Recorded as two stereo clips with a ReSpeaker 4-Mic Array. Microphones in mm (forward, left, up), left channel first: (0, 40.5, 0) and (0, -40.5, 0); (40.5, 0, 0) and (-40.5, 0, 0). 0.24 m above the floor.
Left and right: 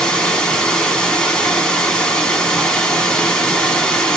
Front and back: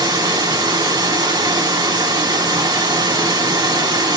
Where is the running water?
170° left, 1.5 m.